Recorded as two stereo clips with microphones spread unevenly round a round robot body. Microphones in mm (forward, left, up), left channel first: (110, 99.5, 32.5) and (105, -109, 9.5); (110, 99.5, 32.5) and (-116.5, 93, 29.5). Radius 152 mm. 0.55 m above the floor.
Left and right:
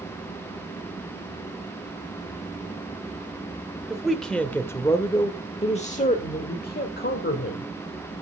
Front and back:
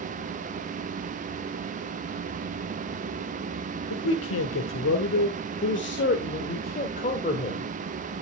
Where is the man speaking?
5° right, 2 m; by 7.7 s 60° left, 2.5 m.